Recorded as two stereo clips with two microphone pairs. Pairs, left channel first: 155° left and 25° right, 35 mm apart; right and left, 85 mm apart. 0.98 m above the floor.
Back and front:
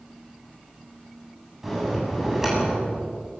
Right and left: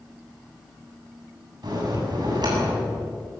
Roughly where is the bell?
Ahead left.